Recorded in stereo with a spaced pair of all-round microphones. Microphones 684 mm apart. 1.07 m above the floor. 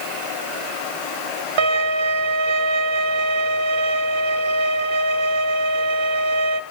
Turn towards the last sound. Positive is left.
turn(degrees=-40)  # may be behind; listen again after turning